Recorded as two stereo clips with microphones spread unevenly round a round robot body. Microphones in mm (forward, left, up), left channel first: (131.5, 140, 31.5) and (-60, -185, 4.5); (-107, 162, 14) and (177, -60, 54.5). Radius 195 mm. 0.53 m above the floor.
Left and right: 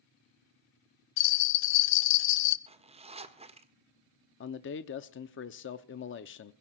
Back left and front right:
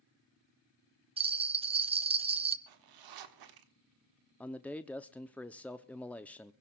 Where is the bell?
35° left, 0.8 m.